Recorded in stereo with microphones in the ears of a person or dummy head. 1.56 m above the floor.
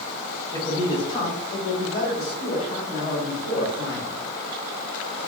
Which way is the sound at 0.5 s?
15° left (ahead or behind).